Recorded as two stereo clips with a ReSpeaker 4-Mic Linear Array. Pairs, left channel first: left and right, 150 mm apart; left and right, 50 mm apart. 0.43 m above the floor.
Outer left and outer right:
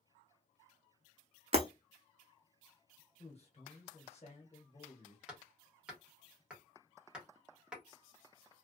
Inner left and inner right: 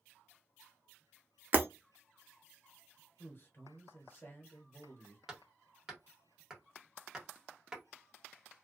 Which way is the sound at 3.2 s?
45° left (ahead or behind).